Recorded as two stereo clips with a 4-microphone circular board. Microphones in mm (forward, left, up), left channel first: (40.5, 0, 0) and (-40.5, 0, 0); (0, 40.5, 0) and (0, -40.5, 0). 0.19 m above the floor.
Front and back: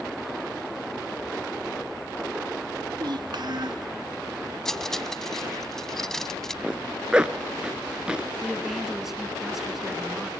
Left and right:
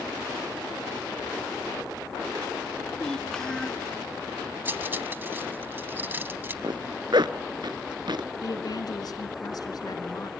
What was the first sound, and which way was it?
A child speaking, 170° left.